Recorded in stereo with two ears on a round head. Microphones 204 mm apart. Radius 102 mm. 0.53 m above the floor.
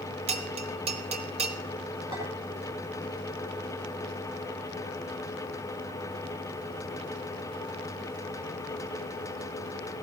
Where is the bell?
30° right (ahead or behind), 1.1 m.